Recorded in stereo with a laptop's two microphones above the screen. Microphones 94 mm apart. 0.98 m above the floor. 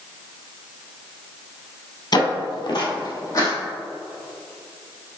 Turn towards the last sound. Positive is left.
turn(degrees=35)  # may be behind; listen again after turning